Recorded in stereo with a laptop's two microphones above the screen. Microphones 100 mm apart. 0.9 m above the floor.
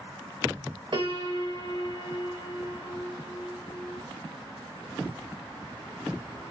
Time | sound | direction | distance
0.9 | a piano | 50° right (ahead or behind) | 1.6 m